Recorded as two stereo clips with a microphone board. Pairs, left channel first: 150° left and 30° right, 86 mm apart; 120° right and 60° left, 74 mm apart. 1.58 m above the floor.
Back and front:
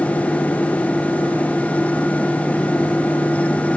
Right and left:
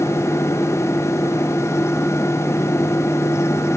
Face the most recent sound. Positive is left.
No sound to turn to.